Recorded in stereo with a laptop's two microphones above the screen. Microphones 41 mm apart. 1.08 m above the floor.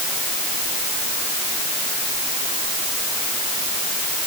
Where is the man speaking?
No man speaking in this recording.